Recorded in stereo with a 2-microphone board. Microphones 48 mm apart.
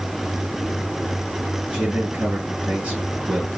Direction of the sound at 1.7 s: 30° right (ahead or behind).